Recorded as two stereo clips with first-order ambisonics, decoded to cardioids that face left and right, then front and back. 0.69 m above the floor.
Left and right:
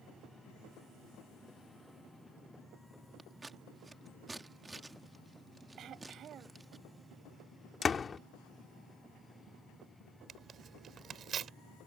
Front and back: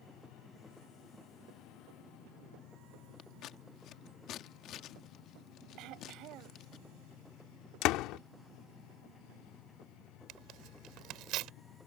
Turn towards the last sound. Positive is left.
turn(degrees=-150)